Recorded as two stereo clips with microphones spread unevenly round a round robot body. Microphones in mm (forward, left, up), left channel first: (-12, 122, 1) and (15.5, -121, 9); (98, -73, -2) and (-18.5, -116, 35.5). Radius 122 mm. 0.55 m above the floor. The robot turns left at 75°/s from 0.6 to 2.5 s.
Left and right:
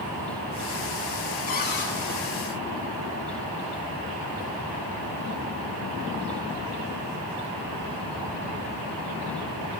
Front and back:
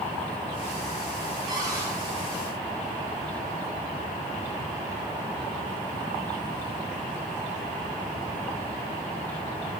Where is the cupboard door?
135° left, 1.7 m; by 1.9 s 105° left, 1.7 m.